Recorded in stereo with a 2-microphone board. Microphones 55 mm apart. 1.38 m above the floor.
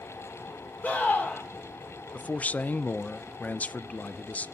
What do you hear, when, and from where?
0.8 s a scream: 30° left (ahead or behind), 3.5 m
2.1 s a man speaking: 30° left (ahead or behind), 0.5 m